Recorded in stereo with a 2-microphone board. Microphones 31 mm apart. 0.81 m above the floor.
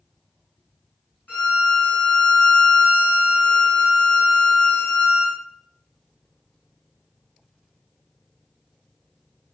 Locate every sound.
1.3 s a violin: 75° left (ahead or behind), 1.6 m